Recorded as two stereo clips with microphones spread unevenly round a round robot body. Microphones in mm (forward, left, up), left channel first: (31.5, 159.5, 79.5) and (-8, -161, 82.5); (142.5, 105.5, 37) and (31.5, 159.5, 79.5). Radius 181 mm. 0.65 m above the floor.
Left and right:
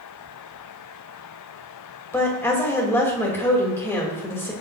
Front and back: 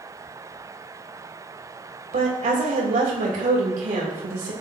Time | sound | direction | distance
2.1 | a woman speaking | 165° left | 3 m